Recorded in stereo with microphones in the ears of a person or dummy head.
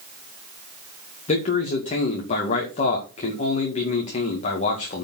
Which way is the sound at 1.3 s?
40° left (ahead or behind).